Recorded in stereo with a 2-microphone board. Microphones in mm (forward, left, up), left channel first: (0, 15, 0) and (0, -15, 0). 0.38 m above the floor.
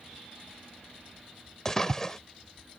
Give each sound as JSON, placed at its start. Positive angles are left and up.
{"t": 1.6, "sound": "a splash", "side_deg": 15}